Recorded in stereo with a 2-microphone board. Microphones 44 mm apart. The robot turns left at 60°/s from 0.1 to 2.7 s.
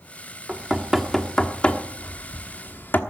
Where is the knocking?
25° right (ahead or behind), 1.2 m; by 3.0 s 50° left (ahead or behind), 1.2 m.